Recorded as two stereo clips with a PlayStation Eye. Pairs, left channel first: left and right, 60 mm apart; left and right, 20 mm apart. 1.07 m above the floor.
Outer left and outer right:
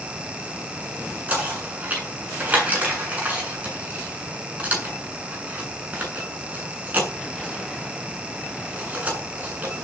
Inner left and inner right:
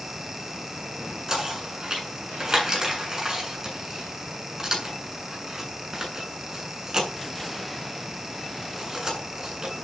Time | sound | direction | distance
1.3 | knocking | 25° right (ahead or behind) | 8 m